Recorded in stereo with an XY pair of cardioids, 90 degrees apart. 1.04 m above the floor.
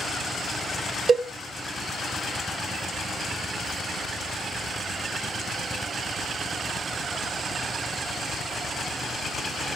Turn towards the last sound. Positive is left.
turn(degrees=-45)